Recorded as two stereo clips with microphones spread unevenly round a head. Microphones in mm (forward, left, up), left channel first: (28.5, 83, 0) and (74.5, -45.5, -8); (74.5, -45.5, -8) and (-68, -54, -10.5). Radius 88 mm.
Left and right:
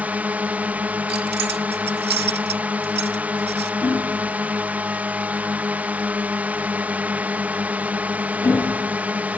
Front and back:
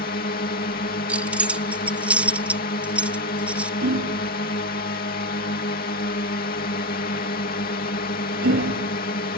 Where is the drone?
5° left.